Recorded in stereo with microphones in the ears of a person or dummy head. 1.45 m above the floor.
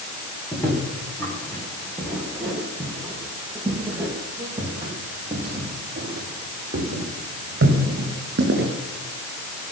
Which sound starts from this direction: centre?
Footsteps, at 0.5 s.